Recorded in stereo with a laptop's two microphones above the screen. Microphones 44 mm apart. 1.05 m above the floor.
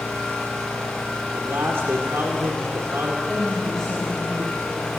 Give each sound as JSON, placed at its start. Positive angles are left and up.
{"t": 0.0, "sound": "an engine running", "side_deg": 15, "distance_m": 6.5}
{"t": 1.3, "sound": "a man speaking", "side_deg": -85, "distance_m": 2.5}
{"t": 3.3, "sound": "a woman speaking", "side_deg": -5, "distance_m": 6.5}